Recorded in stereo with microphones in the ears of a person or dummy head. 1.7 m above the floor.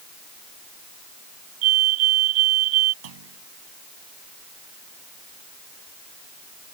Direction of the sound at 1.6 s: 75° right (ahead or behind).